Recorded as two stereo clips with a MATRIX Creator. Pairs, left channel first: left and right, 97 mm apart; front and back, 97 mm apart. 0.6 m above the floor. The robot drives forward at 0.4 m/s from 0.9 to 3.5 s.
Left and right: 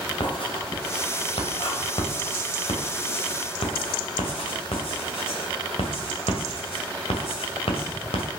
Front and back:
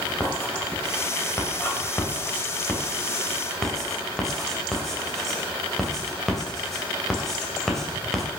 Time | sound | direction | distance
0.2 | writing | 65° left | 2.5 m